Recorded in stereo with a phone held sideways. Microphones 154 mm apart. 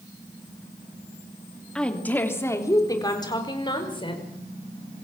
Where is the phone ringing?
No phone ringing in this recording.